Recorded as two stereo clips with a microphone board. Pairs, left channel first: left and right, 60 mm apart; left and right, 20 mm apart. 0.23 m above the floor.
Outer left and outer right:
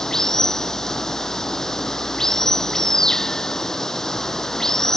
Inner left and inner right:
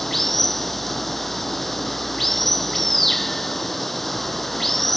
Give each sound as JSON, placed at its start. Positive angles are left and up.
{"t": 0.0, "sound": "running water", "side_deg": 10}